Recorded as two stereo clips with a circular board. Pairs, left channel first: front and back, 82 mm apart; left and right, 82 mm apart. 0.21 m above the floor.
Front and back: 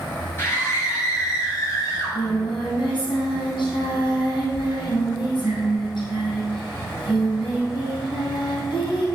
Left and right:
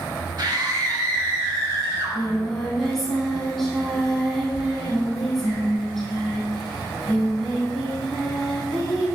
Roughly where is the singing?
Ahead.